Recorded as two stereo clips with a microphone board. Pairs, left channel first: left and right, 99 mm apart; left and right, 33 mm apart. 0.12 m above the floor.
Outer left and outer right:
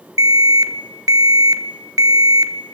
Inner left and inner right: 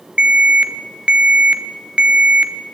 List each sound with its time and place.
0.2 s an alarm: 40° right (ahead or behind), 1.3 m